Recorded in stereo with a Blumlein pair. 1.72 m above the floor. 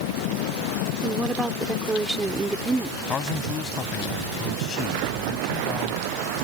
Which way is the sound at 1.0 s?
10° right.